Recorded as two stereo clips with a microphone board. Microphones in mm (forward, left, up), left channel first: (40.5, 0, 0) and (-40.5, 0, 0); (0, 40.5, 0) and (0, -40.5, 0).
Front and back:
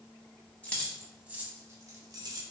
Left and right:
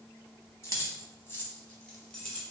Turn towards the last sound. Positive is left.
turn(degrees=175)